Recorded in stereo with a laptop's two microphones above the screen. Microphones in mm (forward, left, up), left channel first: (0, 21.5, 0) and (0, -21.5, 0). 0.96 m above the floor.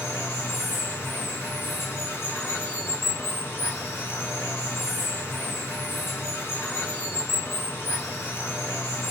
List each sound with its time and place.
0.0 s running water: 75° left (ahead or behind), 1.5 m